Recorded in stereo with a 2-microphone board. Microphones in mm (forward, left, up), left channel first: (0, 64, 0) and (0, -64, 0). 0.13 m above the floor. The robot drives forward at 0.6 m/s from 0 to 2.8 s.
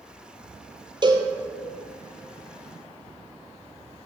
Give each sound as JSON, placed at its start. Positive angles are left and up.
{"t": 1.0, "sound": "a cowbell", "side_deg": -35, "distance_m": 0.9}